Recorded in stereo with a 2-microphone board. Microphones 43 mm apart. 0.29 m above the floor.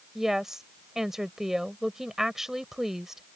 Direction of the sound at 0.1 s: 10° right (ahead or behind).